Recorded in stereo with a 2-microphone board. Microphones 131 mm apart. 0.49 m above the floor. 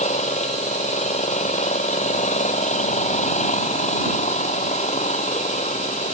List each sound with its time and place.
0.0 s an engine running: 65° left (ahead or behind)